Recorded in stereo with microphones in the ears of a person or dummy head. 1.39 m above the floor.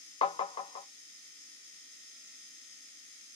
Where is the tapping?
30° left (ahead or behind), 0.5 m.